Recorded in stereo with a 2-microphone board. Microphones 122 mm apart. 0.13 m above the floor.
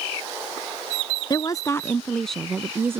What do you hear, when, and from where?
1.3 s a woman speaking: 35° left (ahead or behind); by 3.0 s 25° right (ahead or behind)